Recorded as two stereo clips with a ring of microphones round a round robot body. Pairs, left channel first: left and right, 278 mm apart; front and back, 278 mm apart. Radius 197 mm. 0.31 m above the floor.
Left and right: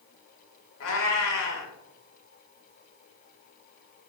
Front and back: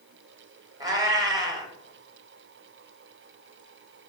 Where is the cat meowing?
105° left, 0.7 m.